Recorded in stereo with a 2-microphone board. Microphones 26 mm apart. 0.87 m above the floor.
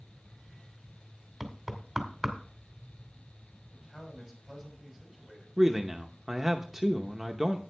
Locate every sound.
1.4 s knocking: 5° right (ahead or behind), 1.9 m
3.7 s a man speaking: 10° left (ahead or behind), 5.5 m
5.6 s a man speaking: 10° right (ahead or behind), 0.8 m